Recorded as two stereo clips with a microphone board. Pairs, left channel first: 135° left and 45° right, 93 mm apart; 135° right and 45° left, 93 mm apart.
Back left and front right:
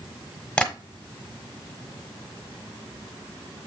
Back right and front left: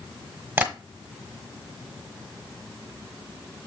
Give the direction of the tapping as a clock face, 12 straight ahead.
10 o'clock.